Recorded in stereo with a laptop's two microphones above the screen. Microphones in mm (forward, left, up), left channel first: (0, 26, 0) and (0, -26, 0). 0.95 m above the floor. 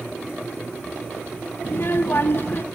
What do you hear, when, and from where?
1.6 s a child speaking: 50° left (ahead or behind), 0.7 m